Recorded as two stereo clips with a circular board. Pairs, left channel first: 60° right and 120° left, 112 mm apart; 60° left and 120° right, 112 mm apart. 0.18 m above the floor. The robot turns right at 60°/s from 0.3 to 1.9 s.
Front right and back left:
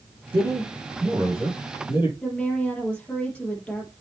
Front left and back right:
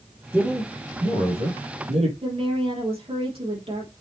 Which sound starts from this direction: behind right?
A woman speaking, at 2.2 s.